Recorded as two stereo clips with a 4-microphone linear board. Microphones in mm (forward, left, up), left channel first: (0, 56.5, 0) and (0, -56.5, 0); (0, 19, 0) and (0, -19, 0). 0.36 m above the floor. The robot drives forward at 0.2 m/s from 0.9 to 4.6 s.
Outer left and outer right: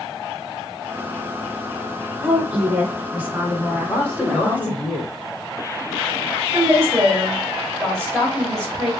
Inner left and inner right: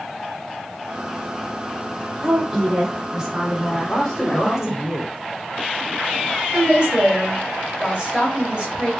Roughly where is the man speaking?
Centre.